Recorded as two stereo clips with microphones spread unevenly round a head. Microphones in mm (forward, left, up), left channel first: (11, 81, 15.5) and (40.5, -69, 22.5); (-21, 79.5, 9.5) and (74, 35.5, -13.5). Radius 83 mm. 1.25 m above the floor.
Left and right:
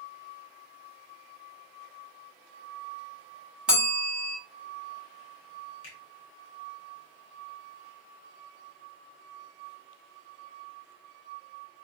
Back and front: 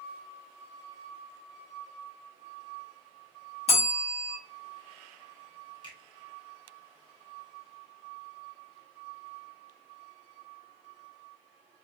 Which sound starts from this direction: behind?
A bell, at 3.7 s.